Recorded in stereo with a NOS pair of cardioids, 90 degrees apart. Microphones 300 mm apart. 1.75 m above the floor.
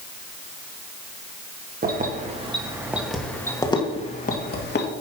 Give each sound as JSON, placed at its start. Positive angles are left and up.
{"t": 1.8, "sound": "keys jangling", "azimuth_deg": -30, "distance_m": 2.0}